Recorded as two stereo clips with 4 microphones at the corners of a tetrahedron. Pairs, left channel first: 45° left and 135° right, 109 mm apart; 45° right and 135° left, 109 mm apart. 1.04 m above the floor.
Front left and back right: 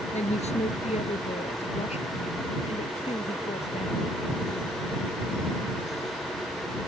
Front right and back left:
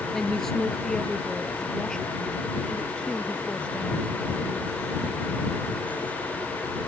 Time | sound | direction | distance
0.1 | a woman speaking | 40° left | ?